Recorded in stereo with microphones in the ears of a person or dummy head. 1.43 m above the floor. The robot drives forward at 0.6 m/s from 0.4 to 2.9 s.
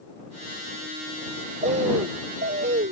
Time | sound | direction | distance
1.6 | a bird | 40° right (ahead or behind) | ?